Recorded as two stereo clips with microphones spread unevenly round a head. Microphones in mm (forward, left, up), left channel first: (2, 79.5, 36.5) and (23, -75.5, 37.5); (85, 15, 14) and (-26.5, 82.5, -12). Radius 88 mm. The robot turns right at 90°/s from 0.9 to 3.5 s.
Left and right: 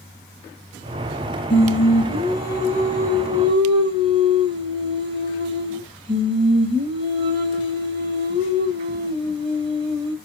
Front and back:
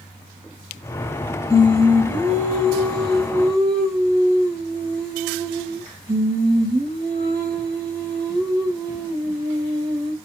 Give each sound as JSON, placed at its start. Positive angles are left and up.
{"t": 1.5, "sound": "singing", "azimuth_deg": 35, "distance_m": 0.8}